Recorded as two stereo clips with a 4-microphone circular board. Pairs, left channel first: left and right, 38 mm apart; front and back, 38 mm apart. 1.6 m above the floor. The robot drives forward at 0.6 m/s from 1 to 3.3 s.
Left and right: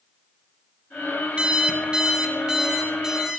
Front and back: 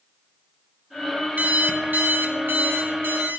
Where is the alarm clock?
145° right, 1.1 m; by 3.4 s 165° right, 2 m.